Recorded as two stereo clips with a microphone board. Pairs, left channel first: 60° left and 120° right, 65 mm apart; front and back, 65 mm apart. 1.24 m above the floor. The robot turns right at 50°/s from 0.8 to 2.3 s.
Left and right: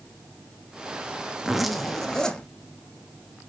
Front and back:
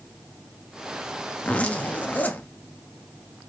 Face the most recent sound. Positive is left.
turn(degrees=0)